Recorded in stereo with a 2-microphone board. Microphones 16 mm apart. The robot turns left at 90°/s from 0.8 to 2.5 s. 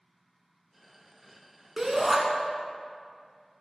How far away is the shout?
About 1.1 m.